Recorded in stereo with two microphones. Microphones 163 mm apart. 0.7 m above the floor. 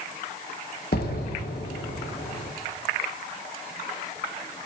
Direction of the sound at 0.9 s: 75° left (ahead or behind).